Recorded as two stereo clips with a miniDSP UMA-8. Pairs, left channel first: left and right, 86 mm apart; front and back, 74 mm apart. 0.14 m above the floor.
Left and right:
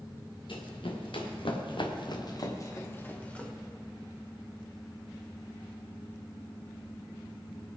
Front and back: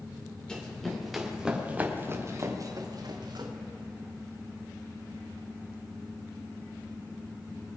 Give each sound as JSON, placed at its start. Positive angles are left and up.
{"t": 0.5, "sound": "running footsteps", "azimuth_deg": 80, "distance_m": 3.5}